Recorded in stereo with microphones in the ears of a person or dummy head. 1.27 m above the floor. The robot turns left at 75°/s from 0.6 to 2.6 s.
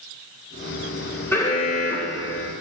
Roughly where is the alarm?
Behind.